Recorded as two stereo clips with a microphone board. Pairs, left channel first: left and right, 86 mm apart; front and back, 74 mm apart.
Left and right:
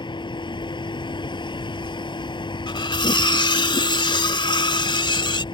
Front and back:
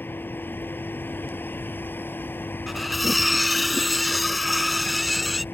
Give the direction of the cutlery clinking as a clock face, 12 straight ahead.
9 o'clock.